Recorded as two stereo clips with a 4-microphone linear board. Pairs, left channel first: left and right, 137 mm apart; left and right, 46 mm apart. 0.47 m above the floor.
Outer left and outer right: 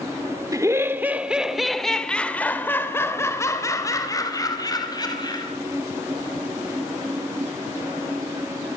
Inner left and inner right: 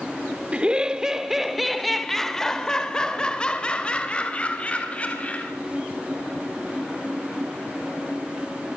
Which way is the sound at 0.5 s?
25° right (ahead or behind).